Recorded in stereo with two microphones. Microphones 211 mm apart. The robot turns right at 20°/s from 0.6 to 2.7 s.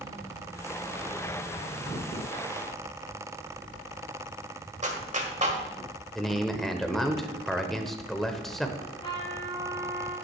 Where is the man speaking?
Centre (ahead or behind), 0.9 m.